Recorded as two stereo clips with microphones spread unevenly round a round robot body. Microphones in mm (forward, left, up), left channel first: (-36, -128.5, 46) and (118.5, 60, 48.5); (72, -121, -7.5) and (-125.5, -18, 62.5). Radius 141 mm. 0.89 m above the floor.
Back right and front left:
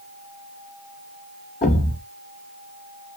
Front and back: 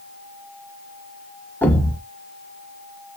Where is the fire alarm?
No fire alarm in this recording.